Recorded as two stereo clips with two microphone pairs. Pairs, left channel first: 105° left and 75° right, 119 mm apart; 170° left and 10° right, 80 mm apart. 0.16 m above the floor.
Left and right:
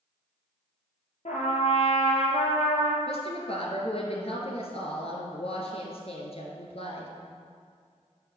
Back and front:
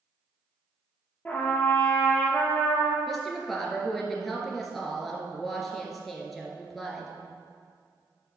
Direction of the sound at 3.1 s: 80° left.